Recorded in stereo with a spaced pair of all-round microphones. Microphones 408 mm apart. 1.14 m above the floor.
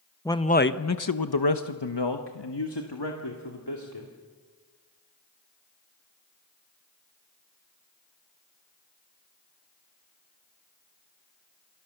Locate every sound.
0.2 s a man speaking: 5° left (ahead or behind), 0.9 m; by 4.1 s 70° left (ahead or behind), 2.5 m